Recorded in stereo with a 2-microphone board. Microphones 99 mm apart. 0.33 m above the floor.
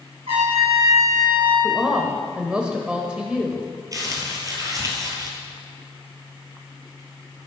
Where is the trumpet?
75° right (ahead or behind), 4 m.